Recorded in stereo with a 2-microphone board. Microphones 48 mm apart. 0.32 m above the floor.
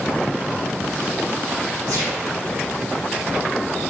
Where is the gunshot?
85° right, 6.5 m.